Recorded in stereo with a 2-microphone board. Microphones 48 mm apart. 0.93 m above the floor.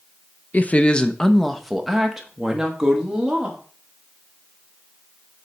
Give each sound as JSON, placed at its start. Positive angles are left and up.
{"t": 0.5, "sound": "a woman speaking", "side_deg": 35, "distance_m": 0.5}